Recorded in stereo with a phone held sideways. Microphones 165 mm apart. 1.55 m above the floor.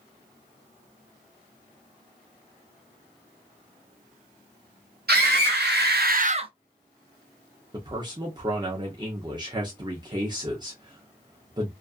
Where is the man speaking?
25° right (ahead or behind), 0.6 m.